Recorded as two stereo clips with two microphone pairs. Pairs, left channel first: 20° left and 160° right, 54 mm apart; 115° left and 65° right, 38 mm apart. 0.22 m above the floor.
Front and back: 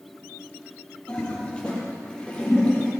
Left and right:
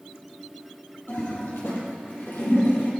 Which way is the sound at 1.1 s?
90° left.